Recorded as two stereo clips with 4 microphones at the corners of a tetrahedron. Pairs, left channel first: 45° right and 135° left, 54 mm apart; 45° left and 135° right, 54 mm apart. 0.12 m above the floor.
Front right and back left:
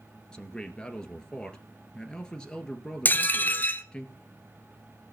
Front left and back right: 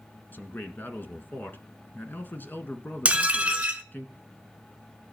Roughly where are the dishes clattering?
Right.